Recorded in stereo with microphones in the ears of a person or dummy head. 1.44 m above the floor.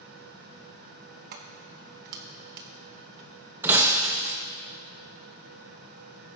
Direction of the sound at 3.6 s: 15° right (ahead or behind).